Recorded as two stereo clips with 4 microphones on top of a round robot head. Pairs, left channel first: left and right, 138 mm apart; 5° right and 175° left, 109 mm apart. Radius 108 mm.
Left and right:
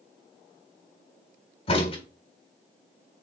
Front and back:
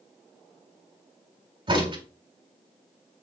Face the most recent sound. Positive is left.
turn(degrees=135)